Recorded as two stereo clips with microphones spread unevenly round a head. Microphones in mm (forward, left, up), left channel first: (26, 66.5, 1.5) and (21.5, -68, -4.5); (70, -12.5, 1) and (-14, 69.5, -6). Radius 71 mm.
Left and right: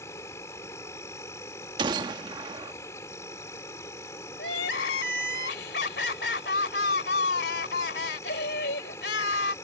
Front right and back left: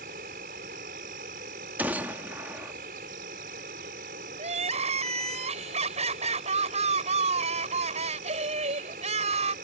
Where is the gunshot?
145° right.